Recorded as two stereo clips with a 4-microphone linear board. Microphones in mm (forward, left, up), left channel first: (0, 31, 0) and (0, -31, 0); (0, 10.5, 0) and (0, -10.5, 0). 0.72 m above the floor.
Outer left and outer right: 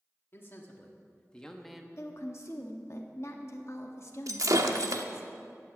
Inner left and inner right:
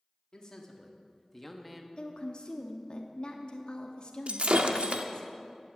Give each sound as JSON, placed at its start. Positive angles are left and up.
{"t": 0.3, "sound": "a man speaking", "side_deg": 40, "distance_m": 1.8}
{"t": 2.0, "sound": "a woman speaking", "side_deg": 50, "distance_m": 1.1}
{"t": 4.3, "sound": "breaking glass", "side_deg": -70, "distance_m": 0.9}